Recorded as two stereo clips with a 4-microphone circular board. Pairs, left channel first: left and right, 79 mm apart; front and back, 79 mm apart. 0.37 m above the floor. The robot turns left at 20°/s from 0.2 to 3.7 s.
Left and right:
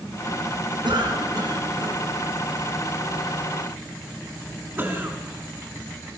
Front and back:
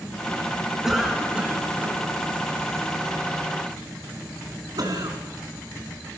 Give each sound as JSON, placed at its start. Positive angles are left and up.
{"t": 0.8, "sound": "a cough", "azimuth_deg": -95, "distance_m": 4.5}